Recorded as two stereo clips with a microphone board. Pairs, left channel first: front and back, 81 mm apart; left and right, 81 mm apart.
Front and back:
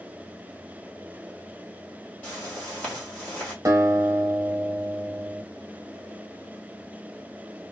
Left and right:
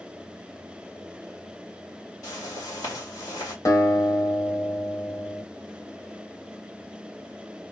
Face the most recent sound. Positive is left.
turn(degrees=135)